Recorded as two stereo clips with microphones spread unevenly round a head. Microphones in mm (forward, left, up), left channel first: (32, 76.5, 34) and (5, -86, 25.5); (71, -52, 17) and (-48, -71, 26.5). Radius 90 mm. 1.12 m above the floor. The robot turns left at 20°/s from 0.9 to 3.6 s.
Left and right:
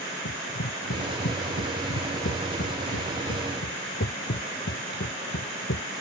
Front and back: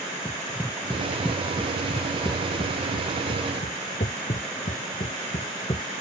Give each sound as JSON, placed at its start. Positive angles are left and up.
{"t": 0.2, "sound": "running footsteps", "azimuth_deg": 90}